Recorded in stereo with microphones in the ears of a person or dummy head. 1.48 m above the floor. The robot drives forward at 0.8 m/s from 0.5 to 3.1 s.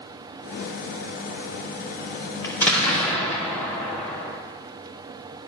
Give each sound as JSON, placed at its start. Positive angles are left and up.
{"t": 2.4, "sound": "an explosion", "side_deg": 15, "distance_m": 0.6}